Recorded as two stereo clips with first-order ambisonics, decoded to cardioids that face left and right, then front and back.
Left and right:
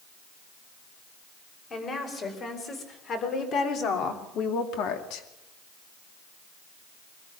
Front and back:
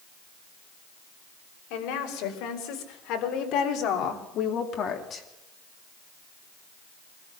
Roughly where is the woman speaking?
Ahead left.